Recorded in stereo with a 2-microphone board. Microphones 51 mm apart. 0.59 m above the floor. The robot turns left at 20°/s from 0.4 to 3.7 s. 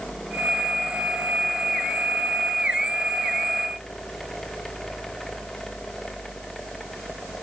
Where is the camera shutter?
No camera shutter in this recording.